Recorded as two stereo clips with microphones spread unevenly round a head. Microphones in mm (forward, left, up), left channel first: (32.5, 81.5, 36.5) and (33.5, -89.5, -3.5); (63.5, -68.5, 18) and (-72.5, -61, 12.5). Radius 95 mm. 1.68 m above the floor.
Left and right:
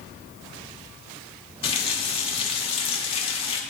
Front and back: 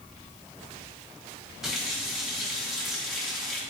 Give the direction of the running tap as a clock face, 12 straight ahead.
9 o'clock.